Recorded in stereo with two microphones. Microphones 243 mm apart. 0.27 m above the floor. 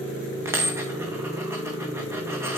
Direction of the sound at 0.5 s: 10° right (ahead or behind).